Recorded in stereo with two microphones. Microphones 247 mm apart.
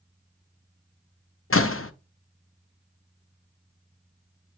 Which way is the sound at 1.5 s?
60° left (ahead or behind).